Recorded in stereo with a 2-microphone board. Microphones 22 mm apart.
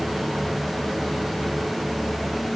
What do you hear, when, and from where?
Only background noise.